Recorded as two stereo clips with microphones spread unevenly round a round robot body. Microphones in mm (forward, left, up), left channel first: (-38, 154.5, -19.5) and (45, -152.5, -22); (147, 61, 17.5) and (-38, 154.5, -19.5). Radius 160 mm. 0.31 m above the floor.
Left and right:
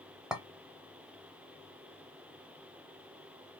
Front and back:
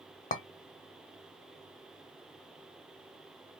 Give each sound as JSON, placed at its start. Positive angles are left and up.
{"t": 0.3, "sound": "a clink", "azimuth_deg": 10, "distance_m": 0.6}